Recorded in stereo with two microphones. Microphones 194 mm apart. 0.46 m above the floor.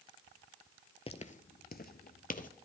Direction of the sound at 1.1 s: 30° left (ahead or behind).